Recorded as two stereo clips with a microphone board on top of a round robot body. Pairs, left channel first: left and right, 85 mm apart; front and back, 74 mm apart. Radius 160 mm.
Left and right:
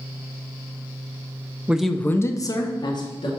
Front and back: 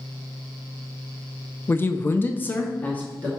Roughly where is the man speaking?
Ahead right.